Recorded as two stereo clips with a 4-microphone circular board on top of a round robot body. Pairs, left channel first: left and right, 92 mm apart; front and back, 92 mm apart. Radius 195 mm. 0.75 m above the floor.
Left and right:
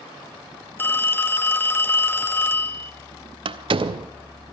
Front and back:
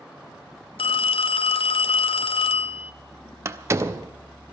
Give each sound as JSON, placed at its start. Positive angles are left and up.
{"t": 0.8, "sound": "a phone ringing", "azimuth_deg": 20, "distance_m": 0.6}
{"t": 3.5, "sound": "a door slam", "azimuth_deg": -120, "distance_m": 0.7}